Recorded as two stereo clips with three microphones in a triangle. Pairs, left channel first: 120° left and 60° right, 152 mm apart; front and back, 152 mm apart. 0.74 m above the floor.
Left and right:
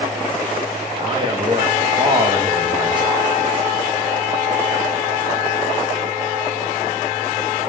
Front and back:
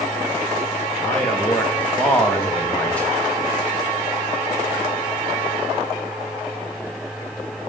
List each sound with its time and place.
1.0 s a man speaking: 75° right, 1.1 m